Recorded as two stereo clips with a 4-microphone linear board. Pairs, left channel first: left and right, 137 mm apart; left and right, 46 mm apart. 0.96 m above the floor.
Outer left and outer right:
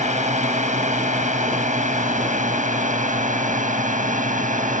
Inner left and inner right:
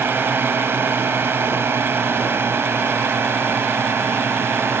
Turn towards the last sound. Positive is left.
turn(degrees=-70)  # may be behind; listen again after turning